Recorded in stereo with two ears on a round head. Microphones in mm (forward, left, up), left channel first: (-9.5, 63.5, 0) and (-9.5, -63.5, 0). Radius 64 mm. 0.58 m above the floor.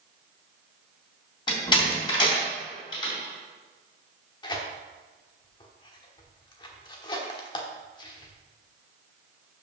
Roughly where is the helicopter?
I don't hear a helicopter.